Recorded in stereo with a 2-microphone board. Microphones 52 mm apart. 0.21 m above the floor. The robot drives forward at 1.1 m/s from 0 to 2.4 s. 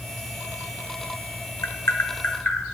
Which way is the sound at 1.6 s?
75° left (ahead or behind).